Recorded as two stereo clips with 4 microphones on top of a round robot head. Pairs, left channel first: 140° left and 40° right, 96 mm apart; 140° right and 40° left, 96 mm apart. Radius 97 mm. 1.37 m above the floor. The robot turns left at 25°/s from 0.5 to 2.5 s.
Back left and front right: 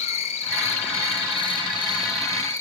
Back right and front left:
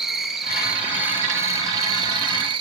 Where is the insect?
125° left, 1.0 m; by 2.6 s 75° left, 1.0 m.